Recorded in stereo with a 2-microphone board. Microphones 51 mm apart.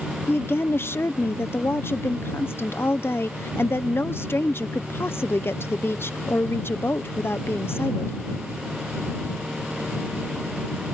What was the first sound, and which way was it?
A woman speaking, 50° left (ahead or behind).